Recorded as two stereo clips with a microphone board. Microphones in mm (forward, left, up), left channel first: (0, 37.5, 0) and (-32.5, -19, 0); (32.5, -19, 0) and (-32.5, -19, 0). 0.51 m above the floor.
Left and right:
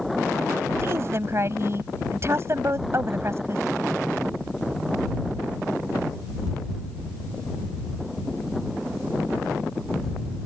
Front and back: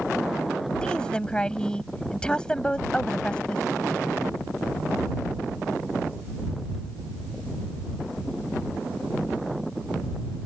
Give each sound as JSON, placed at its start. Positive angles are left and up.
{"t": 0.8, "sound": "a woman speaking", "azimuth_deg": -75}